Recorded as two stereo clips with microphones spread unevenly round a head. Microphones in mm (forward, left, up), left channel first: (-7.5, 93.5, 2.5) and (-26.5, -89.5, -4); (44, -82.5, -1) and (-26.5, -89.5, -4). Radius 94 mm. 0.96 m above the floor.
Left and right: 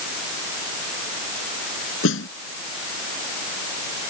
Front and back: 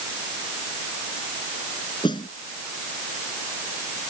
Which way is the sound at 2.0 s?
55° left.